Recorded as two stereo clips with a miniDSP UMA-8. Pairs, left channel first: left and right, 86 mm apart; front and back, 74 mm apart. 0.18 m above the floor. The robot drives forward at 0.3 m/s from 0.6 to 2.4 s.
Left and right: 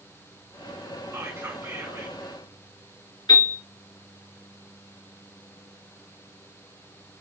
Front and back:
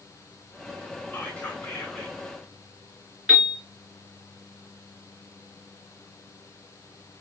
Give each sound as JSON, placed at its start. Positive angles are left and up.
{"t": 1.1, "sound": "whispering", "azimuth_deg": -50, "distance_m": 1.7}
{"t": 3.3, "sound": "a piano", "azimuth_deg": 95, "distance_m": 2.5}